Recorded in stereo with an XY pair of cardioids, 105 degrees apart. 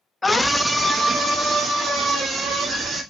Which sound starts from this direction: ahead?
A scream, at 0.2 s.